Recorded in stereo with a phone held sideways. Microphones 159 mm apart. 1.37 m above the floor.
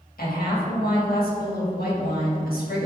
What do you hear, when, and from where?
0.2 s a woman speaking: 75° left (ahead or behind), 2 m